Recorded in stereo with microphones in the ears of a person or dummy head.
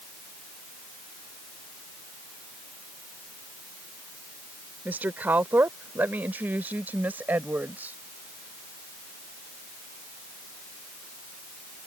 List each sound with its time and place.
4.8 s a woman speaking: 10° right (ahead or behind)